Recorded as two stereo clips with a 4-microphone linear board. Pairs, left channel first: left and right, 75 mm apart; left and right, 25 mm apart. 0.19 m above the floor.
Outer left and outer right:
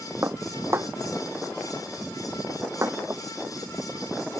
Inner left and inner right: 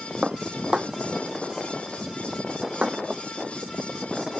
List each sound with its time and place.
0.2 s dishes clattering: 35° right (ahead or behind)